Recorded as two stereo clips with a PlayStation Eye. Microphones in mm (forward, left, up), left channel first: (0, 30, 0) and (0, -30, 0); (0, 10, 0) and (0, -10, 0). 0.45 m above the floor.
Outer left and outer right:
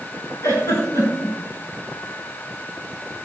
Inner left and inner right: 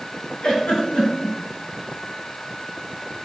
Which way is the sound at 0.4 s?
45° left (ahead or behind).